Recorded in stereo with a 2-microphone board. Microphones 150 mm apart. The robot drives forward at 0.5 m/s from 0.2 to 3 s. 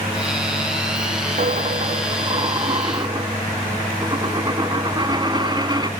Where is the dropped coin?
65° right (ahead or behind), 0.7 m; by 5.9 s 30° right (ahead or behind), 1.2 m.